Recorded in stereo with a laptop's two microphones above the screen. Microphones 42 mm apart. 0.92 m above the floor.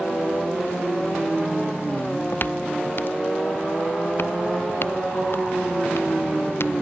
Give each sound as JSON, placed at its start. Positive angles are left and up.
{"t": 2.0, "sound": "footsteps", "side_deg": 45}